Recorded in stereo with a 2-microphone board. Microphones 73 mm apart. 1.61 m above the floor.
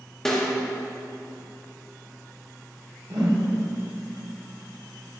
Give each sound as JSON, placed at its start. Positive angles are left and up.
{"t": 0.2, "sound": "a snare drum", "side_deg": 5, "distance_m": 1.3}
{"t": 3.1, "sound": "a whoosh", "side_deg": -70, "distance_m": 1.4}